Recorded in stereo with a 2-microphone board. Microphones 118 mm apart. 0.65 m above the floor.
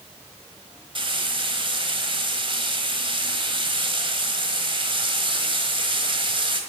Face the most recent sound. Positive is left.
turn(degrees=-45)  # may be behind; listen again after turning